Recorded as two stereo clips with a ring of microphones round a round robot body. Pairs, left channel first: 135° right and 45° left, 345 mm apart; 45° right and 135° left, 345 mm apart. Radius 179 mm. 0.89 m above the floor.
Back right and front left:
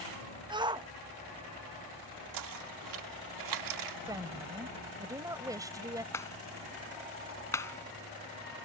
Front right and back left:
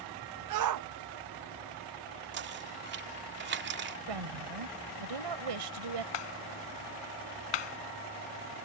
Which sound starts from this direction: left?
Knocking, at 2.3 s.